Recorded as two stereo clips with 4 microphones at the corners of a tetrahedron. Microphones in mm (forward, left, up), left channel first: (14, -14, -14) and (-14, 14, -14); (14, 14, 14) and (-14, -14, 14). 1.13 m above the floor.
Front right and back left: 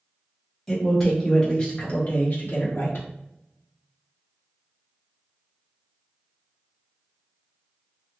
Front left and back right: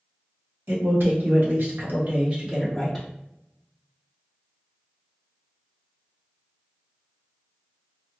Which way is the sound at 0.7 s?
130° right.